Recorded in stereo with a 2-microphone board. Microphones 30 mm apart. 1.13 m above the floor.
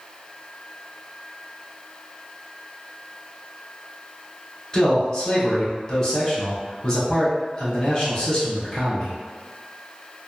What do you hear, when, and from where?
4.7 s a man speaking: 20° left (ahead or behind), 1.1 m